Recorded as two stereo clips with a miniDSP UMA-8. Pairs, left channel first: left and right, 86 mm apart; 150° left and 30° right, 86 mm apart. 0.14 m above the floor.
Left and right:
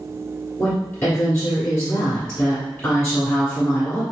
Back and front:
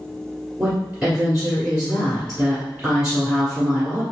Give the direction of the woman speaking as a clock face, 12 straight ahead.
11 o'clock.